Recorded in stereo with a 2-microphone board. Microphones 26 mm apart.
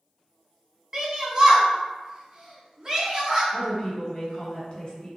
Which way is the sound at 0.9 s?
30° right (ahead or behind).